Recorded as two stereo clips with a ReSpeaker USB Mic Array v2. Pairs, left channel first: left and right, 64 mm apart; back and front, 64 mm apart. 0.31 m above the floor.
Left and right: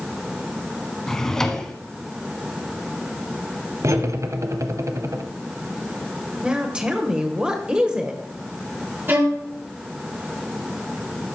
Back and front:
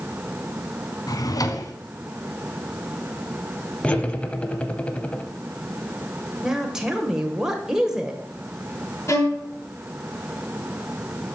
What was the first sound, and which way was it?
A drawer, 170° left.